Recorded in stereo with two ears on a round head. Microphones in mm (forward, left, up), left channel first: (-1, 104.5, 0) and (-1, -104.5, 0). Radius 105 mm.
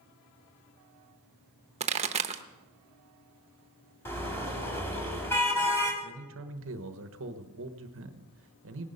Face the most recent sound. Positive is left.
turn(degrees=-60)  # may be behind; listen again after turning